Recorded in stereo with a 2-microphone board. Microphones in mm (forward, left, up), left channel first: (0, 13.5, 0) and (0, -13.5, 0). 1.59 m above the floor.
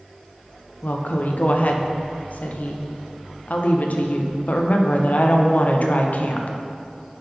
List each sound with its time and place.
0.8 s a woman speaking: 65° left (ahead or behind), 0.7 m